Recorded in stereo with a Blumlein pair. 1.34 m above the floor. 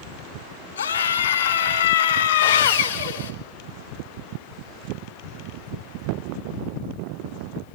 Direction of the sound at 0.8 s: 70° left.